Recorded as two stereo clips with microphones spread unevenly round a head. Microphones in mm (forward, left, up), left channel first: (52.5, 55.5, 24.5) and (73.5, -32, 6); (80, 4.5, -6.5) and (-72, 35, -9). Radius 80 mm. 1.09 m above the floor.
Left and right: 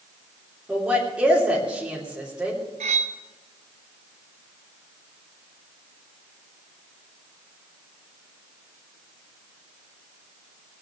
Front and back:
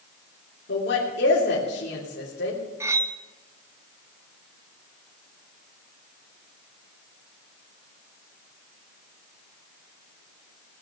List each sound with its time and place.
0.7 s a woman speaking: 5° left, 3 m
2.8 s cutlery clinking: 115° right, 0.6 m